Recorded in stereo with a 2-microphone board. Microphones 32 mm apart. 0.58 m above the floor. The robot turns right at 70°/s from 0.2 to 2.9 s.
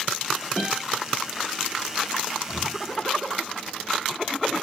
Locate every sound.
0.6 s a guitar: 5° right (ahead or behind), 1.5 m; by 0.8 s 5° left (ahead or behind), 1.5 m
2.5 s breathing: 45° left (ahead or behind), 0.9 m; by 2.8 s 65° left (ahead or behind), 0.9 m